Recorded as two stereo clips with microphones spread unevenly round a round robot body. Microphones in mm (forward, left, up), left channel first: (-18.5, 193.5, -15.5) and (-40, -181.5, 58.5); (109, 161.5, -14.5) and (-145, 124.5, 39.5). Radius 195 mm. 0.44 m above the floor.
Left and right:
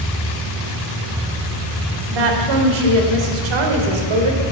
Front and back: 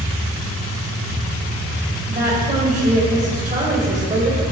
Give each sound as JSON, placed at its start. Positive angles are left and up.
{"t": 2.1, "sound": "a woman speaking", "azimuth_deg": -100, "distance_m": 2.0}